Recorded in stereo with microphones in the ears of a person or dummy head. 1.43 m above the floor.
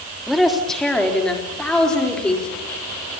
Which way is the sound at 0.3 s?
5° left (ahead or behind).